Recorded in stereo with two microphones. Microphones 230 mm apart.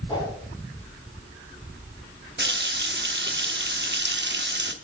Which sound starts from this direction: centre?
A whoosh, at 0.1 s.